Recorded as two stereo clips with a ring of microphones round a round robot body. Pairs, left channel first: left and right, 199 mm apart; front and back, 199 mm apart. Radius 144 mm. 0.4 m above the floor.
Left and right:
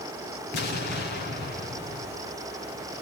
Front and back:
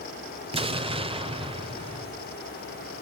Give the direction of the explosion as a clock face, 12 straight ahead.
8 o'clock.